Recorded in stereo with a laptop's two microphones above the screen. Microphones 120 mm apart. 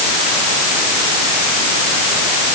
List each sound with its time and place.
Only background noise.